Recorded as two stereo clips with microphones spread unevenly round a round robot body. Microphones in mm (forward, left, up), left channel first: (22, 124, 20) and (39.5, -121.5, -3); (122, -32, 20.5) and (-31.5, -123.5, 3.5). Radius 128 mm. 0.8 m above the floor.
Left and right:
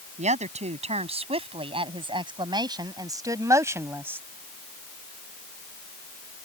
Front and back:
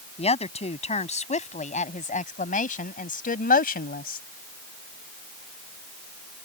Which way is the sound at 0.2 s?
25° right.